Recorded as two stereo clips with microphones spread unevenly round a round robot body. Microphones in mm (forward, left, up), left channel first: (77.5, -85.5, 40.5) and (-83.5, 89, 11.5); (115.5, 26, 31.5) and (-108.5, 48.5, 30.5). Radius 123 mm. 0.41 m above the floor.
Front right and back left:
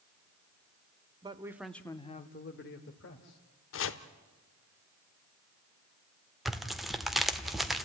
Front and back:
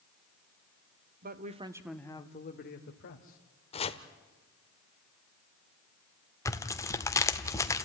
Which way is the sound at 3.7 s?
65° right.